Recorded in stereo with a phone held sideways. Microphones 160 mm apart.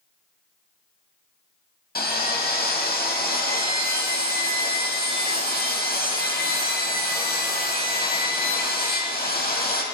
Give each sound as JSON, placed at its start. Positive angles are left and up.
{"t": 1.9, "sound": "sawing", "side_deg": 70, "distance_m": 1.5}